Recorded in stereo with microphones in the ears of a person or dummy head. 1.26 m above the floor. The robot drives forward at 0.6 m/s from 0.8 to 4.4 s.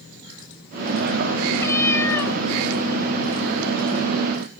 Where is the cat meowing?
10° left (ahead or behind), 1.6 m; by 2.4 s 5° left (ahead or behind), 2 m.